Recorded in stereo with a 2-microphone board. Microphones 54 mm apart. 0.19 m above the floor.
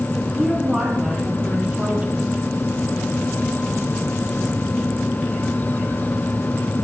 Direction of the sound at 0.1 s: 5° right (ahead or behind).